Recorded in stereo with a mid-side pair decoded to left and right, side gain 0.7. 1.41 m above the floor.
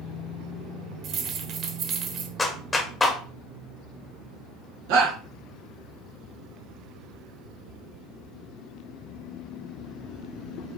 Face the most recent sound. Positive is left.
turn(degrees=-65)